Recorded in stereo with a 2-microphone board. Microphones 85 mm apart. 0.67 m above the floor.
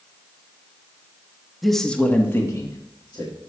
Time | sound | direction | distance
1.6 | a man speaking | centre (ahead or behind) | 0.9 m